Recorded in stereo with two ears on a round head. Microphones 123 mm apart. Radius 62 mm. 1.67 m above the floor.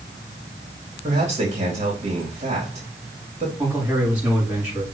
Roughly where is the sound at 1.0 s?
Right.